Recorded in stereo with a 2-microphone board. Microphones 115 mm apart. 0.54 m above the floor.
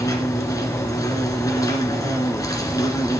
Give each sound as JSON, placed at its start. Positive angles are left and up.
{"t": 0.0, "sound": "an insect", "side_deg": 30, "distance_m": 1.6}